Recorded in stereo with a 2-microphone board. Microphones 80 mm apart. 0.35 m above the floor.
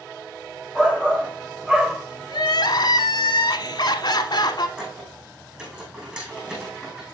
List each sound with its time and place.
0.8 s a shout: 10° right (ahead or behind), 1.3 m
2.3 s crying: 60° left (ahead or behind), 0.9 m
4.8 s a squeak: 15° right (ahead or behind), 4.5 m